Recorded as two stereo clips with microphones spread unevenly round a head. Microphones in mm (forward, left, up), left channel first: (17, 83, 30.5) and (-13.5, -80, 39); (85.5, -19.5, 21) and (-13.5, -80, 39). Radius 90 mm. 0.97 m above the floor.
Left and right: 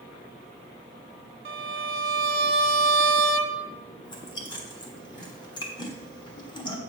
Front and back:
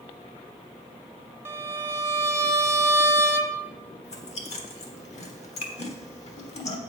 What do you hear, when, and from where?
1.4 s a violin: 80° right, 0.9 m
4.0 s chewing: 15° left, 1.4 m